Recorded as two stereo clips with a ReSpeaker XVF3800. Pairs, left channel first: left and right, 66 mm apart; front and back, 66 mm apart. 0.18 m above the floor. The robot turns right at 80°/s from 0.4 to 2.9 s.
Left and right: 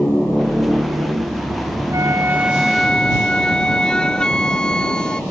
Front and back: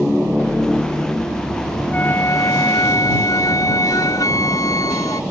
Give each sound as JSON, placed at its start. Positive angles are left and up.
{"t": 1.9, "sound": "a flute", "azimuth_deg": -65}